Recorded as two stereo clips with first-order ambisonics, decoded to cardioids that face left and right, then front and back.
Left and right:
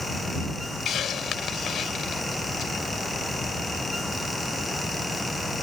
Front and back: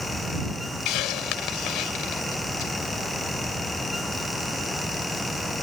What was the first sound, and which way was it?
A hiss, 30° left.